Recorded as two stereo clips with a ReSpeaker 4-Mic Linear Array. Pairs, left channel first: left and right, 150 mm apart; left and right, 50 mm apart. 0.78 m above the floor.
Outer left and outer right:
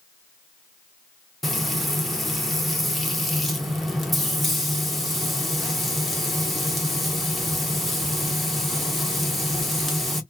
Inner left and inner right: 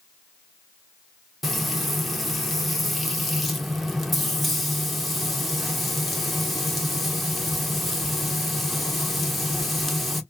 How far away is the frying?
About 0.6 m.